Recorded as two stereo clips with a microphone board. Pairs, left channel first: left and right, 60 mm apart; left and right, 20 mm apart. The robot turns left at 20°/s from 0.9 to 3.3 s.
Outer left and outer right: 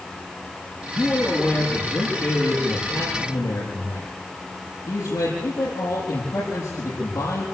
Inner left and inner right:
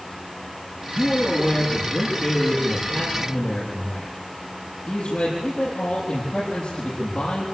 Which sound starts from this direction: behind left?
A man speaking, at 0.9 s.